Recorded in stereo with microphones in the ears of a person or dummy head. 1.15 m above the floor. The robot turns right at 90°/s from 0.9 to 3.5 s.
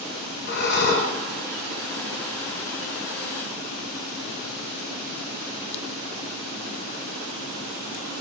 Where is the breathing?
50° left (ahead or behind), 0.8 m; by 1.1 s 30° left (ahead or behind), 0.8 m.